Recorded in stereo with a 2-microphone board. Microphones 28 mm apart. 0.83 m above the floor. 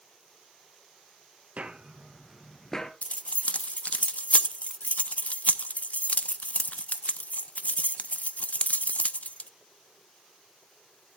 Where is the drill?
I don't hear a drill.